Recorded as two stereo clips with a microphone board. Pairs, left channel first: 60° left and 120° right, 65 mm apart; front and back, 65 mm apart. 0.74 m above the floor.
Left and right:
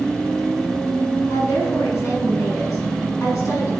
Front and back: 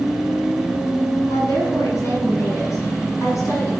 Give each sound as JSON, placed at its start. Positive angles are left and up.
{"t": 1.3, "sound": "a woman speaking", "azimuth_deg": 35, "distance_m": 7.0}